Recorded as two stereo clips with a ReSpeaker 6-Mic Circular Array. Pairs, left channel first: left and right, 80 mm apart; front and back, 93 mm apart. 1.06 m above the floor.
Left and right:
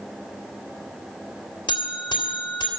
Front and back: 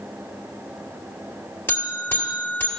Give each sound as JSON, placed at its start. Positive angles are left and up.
{"t": 1.7, "sound": "a buzzer", "azimuth_deg": 70, "distance_m": 2.0}